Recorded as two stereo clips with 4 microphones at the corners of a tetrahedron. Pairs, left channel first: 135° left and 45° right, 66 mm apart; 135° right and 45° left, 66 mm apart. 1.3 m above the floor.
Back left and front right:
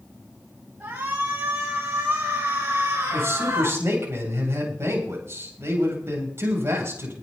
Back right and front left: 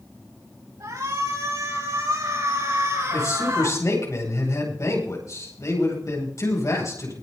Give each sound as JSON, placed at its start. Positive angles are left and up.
{"t": 0.8, "sound": "a shout", "azimuth_deg": 15, "distance_m": 8.5}
{"t": 3.1, "sound": "a man speaking", "azimuth_deg": -95, "distance_m": 8.5}